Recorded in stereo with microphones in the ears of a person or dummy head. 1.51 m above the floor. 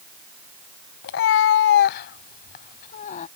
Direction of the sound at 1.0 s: 55° left (ahead or behind).